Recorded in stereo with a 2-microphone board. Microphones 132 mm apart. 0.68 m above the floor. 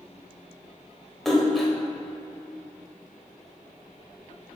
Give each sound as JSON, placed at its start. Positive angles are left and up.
{"t": 1.2, "sound": "a splash", "side_deg": 0, "distance_m": 1.3}